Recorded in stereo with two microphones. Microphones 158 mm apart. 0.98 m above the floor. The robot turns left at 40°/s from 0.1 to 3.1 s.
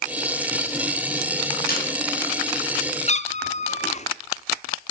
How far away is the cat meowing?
About 0.6 m.